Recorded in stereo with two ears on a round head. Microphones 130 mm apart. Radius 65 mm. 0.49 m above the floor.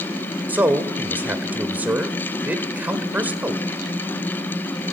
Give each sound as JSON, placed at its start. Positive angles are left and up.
{"t": 0.5, "sound": "a man speaking", "side_deg": -10, "distance_m": 1.4}